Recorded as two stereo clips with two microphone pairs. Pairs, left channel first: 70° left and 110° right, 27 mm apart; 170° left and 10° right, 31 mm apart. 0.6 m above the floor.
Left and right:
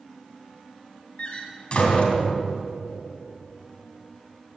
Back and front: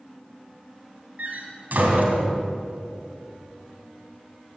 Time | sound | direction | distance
1.2 | a door slam | 20° left | 3 m